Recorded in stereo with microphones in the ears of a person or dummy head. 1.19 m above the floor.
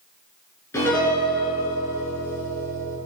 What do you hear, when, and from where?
0.7 s a piano: 15° left (ahead or behind), 6.5 m